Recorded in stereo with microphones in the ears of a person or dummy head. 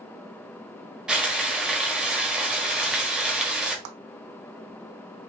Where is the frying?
5° right (ahead or behind), 1.0 m.